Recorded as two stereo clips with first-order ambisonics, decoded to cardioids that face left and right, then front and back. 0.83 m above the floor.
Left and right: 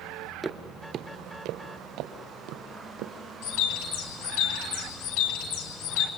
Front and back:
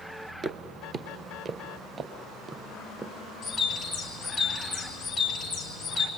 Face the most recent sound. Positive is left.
turn(degrees=80)